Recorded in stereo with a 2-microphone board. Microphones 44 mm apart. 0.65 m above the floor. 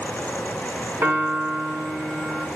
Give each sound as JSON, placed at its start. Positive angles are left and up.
{"t": 1.0, "sound": "a piano", "side_deg": -85, "distance_m": 4.5}